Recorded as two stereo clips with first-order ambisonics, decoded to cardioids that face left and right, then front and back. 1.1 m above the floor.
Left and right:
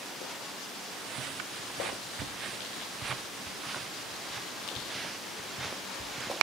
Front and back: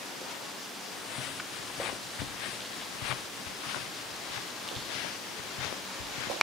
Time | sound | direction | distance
0.9 | footsteps | 40° right | ?